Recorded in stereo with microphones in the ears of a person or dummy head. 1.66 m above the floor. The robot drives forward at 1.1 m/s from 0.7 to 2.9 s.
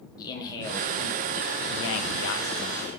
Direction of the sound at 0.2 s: 25° left (ahead or behind).